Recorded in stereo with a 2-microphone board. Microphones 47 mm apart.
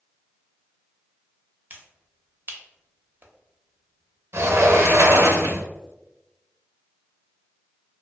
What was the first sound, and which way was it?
A finger snap, 40° right (ahead or behind).